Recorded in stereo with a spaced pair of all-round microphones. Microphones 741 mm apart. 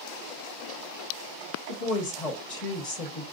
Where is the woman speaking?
45° left (ahead or behind), 1.2 m.